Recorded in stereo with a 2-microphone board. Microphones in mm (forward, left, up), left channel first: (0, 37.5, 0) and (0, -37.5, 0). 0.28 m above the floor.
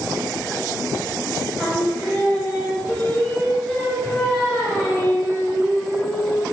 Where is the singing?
15° left (ahead or behind), 0.8 m.